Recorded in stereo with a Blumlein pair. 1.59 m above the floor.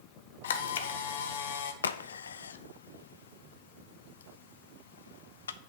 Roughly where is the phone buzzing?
I don't hear a phone buzzing.